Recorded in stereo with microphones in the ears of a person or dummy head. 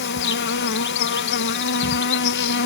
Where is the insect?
55° left (ahead or behind).